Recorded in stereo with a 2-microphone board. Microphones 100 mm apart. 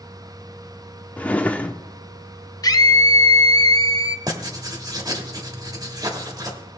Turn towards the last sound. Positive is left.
turn(degrees=-40)  # may be behind; listen again after turning